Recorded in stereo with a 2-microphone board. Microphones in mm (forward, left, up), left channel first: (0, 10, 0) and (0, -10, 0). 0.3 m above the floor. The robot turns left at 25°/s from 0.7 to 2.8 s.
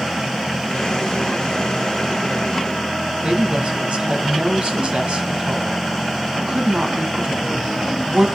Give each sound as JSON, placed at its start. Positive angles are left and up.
{"t": 3.2, "sound": "a woman speaking", "side_deg": -60, "distance_m": 2.0}